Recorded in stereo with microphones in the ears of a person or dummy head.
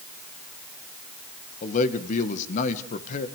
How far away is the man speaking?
About 1.6 m.